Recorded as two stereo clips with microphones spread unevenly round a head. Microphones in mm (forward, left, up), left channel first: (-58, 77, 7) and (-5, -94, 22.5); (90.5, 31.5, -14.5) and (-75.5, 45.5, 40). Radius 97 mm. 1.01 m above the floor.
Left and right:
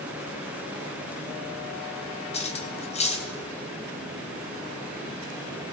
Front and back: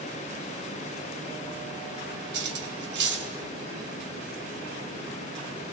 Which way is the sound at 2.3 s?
165° left.